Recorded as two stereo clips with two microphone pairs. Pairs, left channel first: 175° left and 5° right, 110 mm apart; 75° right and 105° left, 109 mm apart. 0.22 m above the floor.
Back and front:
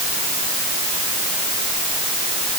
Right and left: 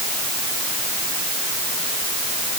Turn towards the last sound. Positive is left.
No sound to turn to.